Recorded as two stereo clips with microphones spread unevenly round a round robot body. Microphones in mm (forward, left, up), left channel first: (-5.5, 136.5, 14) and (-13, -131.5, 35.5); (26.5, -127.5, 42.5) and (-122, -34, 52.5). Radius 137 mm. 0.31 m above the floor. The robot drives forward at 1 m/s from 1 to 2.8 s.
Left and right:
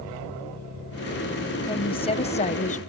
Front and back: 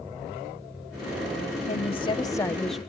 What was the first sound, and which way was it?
A woman speaking, 20° left.